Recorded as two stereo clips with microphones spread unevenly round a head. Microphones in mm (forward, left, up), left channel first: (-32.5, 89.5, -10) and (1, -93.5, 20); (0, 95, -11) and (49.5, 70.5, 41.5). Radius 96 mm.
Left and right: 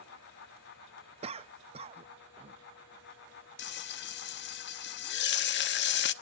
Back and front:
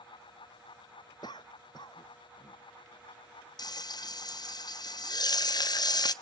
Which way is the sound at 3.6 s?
100° left.